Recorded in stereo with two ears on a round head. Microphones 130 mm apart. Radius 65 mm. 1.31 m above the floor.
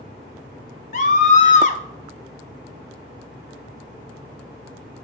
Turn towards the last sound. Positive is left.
turn(degrees=55)  # may be behind; listen again after turning